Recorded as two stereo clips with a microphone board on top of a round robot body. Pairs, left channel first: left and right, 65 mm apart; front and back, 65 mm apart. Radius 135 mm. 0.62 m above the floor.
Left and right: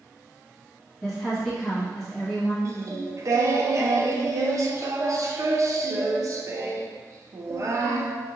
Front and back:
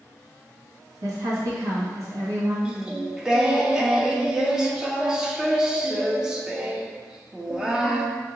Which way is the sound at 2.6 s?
105° right.